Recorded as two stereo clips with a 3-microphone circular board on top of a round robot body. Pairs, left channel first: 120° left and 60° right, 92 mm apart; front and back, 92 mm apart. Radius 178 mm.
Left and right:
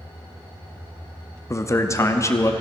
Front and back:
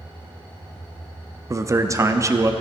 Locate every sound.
1.5 s a man speaking: 155° left, 0.8 m